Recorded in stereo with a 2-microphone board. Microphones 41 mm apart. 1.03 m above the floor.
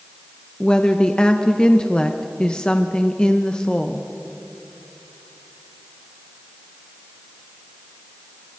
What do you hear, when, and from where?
0.6 s a woman speaking: 20° left (ahead or behind), 1.0 m